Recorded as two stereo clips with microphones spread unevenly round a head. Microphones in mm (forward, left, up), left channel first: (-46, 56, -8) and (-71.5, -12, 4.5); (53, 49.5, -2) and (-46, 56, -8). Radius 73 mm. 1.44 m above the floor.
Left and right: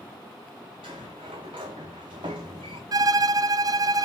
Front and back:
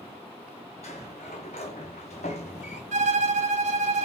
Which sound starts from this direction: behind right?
A violin, at 2.9 s.